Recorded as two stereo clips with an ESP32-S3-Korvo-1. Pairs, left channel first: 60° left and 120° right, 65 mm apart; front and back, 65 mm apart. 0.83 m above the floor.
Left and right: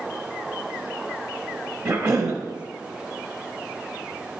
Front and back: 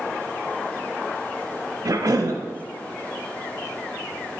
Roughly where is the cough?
Behind.